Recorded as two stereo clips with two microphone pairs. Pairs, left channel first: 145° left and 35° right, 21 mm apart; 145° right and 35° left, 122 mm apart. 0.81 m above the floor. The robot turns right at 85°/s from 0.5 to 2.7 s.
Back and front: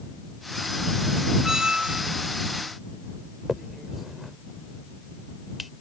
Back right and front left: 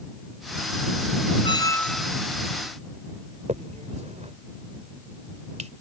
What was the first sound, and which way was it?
A squeak, 100° right.